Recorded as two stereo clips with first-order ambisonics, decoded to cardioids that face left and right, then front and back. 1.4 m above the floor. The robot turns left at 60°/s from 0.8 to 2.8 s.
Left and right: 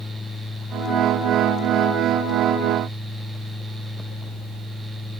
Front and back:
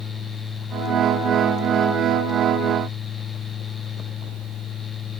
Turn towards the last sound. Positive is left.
No sound to turn to.